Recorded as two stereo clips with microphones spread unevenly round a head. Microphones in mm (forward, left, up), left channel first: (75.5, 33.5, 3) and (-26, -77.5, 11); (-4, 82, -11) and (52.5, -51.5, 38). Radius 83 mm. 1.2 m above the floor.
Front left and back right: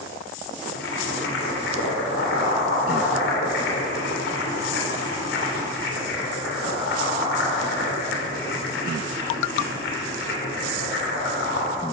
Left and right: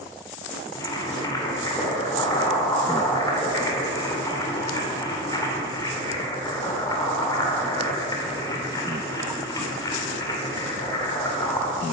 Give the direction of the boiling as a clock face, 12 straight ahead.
11 o'clock.